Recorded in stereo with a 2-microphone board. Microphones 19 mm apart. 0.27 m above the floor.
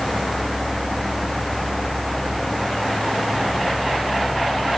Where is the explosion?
I don't hear an explosion.